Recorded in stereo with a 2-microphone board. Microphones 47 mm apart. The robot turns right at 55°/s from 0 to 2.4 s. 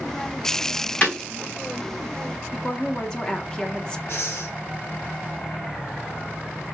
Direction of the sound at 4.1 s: 60° left (ahead or behind).